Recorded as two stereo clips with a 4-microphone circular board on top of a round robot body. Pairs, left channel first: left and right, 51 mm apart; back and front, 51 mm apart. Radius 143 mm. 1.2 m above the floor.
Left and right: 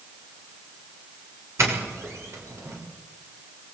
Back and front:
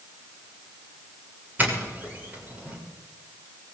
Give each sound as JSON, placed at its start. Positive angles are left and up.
{"t": 1.6, "sound": "a doorbell", "azimuth_deg": -60, "distance_m": 6.5}